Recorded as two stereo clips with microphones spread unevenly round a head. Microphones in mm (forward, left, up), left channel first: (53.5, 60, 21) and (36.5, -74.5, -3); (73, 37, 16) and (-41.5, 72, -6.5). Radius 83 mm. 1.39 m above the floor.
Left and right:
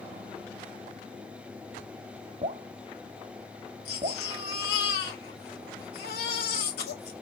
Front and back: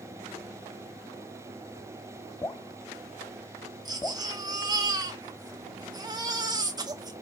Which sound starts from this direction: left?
A baby crying, at 3.9 s.